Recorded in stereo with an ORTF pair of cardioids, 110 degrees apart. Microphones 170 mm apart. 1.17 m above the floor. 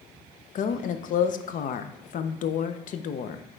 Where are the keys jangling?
No keys jangling in this recording.